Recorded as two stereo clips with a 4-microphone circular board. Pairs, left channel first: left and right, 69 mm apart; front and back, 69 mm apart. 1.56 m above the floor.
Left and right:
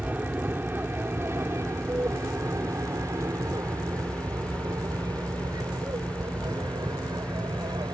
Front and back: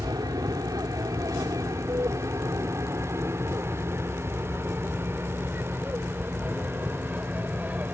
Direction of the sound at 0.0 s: 155° right.